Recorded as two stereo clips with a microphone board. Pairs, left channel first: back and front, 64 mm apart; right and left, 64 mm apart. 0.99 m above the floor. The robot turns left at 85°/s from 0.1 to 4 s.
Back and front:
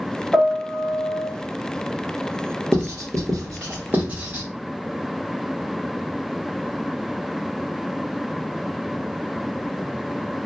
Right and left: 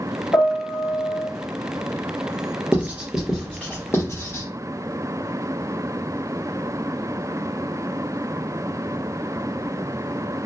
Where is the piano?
80° right, 0.8 m; by 1.3 s 165° right, 0.8 m.